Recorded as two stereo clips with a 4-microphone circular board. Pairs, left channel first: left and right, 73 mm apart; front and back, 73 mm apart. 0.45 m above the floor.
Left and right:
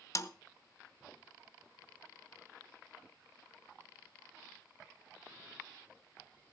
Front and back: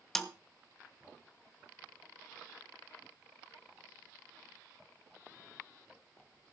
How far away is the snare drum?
About 0.8 m.